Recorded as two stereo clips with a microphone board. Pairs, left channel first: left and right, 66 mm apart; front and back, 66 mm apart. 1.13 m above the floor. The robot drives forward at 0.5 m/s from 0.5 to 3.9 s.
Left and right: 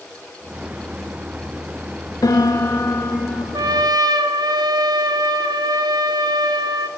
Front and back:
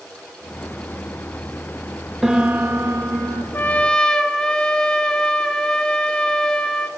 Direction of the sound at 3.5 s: 60° right.